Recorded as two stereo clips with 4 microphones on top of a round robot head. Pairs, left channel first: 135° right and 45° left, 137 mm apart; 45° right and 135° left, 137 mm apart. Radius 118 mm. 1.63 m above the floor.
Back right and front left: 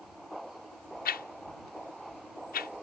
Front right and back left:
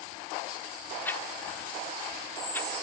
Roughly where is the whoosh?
Behind right.